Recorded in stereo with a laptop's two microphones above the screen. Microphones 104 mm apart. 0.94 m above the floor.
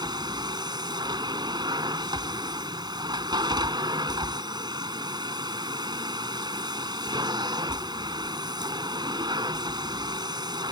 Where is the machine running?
45° right (ahead or behind).